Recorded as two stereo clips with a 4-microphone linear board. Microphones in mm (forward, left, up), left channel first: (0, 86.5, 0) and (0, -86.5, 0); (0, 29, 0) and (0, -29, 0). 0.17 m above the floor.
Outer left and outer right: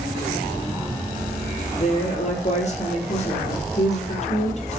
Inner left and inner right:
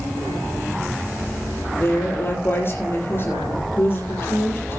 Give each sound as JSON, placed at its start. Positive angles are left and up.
{"t": 1.7, "sound": "a woman speaking", "side_deg": 40, "distance_m": 5.0}